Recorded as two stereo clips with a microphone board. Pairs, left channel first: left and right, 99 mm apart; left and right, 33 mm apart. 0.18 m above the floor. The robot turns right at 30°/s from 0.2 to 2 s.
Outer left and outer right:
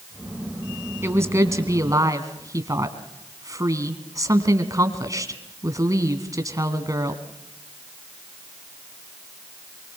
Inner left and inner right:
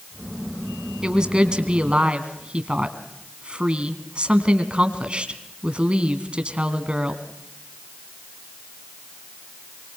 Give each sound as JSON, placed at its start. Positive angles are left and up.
{"t": 1.0, "sound": "a woman speaking", "side_deg": -25, "distance_m": 1.9}